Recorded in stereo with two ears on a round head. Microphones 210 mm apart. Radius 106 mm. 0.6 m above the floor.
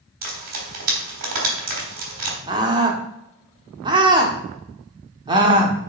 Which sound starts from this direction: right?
Frying, at 0.2 s.